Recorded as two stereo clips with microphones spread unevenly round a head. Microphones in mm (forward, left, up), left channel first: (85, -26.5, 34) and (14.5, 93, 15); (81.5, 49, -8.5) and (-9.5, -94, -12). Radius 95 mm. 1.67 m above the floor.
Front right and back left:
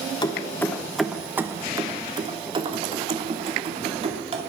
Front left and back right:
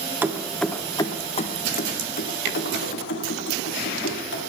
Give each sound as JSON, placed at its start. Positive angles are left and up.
{"t": 0.2, "sound": "keys jangling", "azimuth_deg": -50, "distance_m": 1.0}